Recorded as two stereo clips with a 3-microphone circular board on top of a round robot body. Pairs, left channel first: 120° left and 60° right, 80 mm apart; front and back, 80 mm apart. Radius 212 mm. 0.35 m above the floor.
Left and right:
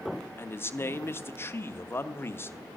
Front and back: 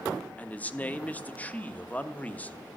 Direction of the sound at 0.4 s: 65° left.